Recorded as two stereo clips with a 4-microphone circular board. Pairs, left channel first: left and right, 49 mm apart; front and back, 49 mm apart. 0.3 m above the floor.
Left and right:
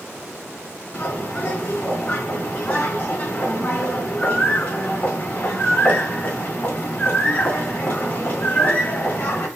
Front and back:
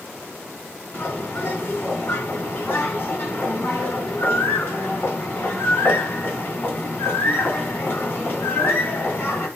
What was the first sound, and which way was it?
A bird, 45° left.